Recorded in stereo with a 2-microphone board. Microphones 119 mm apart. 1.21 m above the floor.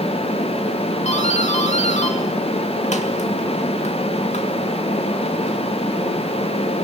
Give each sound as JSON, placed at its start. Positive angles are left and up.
{"t": 1.1, "sound": "a doorbell", "side_deg": 65, "distance_m": 2.5}